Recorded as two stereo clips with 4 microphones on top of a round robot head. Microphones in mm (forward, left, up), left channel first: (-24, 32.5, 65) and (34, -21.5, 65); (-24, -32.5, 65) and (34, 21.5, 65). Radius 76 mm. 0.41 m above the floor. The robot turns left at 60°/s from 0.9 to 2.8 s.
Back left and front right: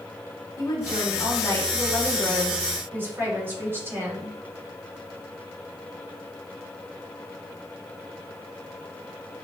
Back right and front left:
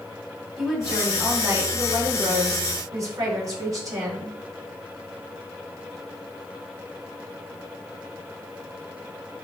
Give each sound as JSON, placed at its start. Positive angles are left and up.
{"t": 0.6, "sound": "a woman speaking", "azimuth_deg": 125, "distance_m": 2.0}